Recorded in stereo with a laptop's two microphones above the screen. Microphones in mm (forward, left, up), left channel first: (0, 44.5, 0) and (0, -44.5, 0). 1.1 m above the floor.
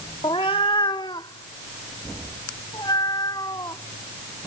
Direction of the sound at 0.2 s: 75° left (ahead or behind).